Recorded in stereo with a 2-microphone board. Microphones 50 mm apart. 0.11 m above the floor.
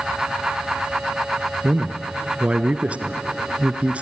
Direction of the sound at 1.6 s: 25° right (ahead or behind).